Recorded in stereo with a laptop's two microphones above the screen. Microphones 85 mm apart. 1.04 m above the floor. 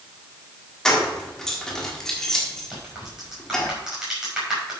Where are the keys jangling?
5° left (ahead or behind), 1.6 m.